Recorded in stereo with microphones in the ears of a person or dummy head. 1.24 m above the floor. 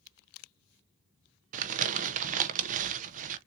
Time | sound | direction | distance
1.5 | crumpling | 40° right (ahead or behind) | 0.7 m